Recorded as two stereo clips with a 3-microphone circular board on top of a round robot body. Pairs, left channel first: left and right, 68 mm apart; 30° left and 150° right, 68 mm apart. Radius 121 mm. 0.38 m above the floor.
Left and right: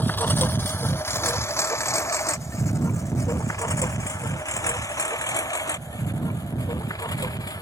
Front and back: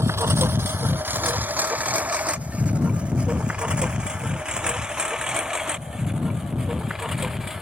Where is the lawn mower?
155° left; by 7.6 s 125° left.